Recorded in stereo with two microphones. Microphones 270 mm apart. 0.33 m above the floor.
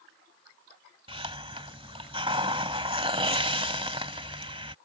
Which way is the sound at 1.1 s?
20° right (ahead or behind).